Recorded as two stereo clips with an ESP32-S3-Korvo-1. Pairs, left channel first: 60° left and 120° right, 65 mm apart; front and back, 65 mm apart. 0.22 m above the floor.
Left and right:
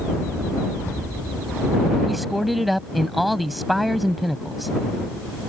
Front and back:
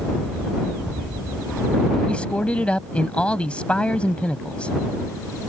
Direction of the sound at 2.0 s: 30° right.